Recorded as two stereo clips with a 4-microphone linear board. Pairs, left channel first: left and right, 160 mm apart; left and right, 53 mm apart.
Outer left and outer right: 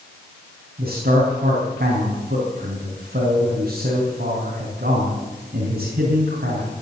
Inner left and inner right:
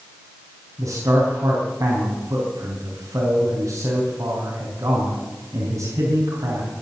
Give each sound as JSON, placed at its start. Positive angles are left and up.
{"t": 0.8, "sound": "a man speaking", "side_deg": -80, "distance_m": 4.0}